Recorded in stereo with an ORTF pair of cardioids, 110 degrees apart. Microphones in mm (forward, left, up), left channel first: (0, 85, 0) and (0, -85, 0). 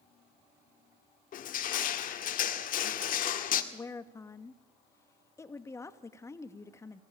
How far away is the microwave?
I don't hear a microwave.